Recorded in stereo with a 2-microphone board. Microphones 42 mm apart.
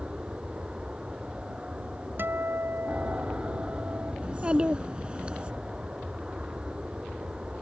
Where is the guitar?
55° right (ahead or behind).